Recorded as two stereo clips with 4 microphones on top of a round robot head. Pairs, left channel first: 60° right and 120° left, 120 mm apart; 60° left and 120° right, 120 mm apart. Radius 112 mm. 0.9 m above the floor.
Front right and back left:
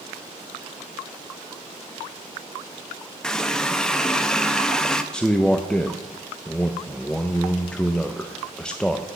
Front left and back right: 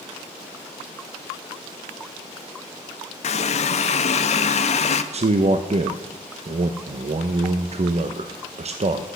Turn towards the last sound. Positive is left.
turn(degrees=-140)